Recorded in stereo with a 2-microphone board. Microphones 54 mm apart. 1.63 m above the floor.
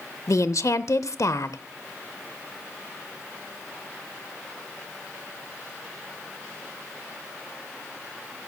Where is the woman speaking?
70° left (ahead or behind), 0.6 m.